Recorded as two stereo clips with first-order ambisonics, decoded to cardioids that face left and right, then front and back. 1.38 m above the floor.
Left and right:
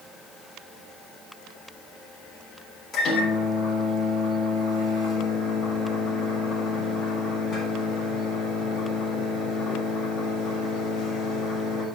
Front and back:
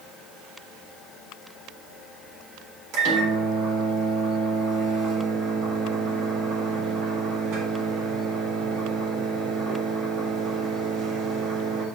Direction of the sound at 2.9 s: 155° left.